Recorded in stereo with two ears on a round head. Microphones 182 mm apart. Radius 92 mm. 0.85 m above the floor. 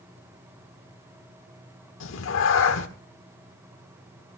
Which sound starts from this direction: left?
A cat meowing, at 2.0 s.